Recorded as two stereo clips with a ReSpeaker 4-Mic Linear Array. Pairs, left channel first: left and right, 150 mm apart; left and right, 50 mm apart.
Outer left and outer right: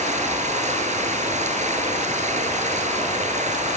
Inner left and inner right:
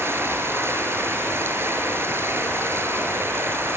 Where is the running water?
50° right (ahead or behind), 6.5 m.